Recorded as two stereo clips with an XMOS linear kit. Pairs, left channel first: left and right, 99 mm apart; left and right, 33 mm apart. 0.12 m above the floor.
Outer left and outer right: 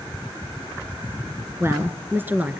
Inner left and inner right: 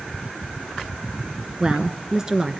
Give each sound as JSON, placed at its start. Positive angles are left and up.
{"t": 1.6, "sound": "a woman speaking", "side_deg": -25, "distance_m": 1.3}